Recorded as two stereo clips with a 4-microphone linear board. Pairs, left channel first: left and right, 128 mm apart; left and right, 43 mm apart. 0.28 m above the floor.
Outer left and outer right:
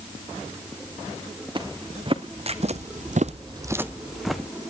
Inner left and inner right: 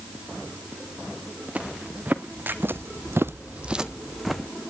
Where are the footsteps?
35° right (ahead or behind), 2 m; by 4.5 s 5° left (ahead or behind), 1.5 m.